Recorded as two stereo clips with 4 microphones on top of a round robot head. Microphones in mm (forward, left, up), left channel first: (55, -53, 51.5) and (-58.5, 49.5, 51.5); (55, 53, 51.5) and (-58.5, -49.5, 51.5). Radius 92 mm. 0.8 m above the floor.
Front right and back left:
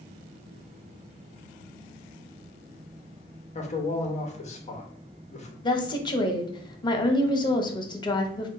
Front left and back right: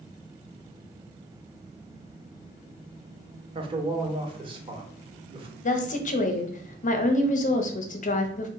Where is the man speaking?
85° right, 0.8 m.